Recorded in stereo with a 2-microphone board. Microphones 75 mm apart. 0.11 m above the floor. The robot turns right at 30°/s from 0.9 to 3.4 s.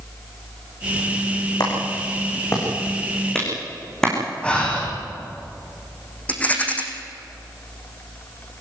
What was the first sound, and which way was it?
A clap, 60° left (ahead or behind).